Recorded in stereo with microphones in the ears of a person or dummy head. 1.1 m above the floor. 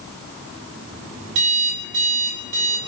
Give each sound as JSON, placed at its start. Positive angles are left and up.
{"t": 1.4, "sound": "an alarm clock", "side_deg": -70, "distance_m": 2.0}